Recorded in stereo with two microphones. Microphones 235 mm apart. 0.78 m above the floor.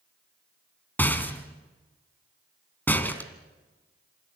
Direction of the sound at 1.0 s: 10° left (ahead or behind).